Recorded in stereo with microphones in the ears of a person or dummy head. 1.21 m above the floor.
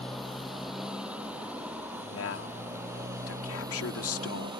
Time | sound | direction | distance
0.0 | a motorcycle | centre (ahead or behind) | ?
2.1 | a man speaking | 80° left | ?